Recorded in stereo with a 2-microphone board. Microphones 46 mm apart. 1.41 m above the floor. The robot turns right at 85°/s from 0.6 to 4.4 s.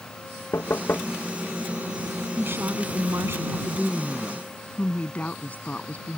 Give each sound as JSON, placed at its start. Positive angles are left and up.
{"t": 0.5, "sound": "knocking", "azimuth_deg": 100}
{"t": 2.4, "sound": "a woman speaking", "azimuth_deg": -140}